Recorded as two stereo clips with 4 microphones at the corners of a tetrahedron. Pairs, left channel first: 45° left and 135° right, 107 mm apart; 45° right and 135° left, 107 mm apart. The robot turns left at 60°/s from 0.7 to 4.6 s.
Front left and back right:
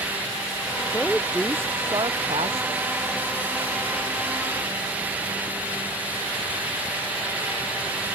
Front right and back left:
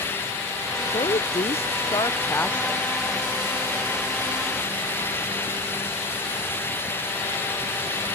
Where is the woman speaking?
25° right; by 2.9 s 140° right.